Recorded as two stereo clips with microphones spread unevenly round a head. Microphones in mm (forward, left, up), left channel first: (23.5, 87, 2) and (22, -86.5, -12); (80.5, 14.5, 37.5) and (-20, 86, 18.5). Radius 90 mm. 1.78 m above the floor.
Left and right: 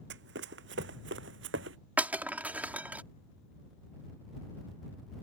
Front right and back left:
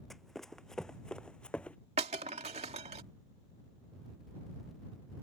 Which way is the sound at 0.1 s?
120° right.